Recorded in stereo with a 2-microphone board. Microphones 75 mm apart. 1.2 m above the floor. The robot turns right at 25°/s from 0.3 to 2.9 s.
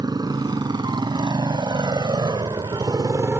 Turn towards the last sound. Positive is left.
turn(degrees=-30)  # may be behind; listen again after turning